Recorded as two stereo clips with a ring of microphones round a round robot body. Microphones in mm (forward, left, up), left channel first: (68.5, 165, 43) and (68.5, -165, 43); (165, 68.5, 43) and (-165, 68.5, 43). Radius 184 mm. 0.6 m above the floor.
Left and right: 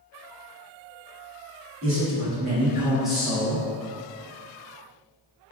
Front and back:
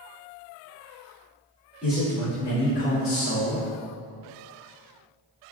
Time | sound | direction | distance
1.8 | a man speaking | 95° right | 1.4 m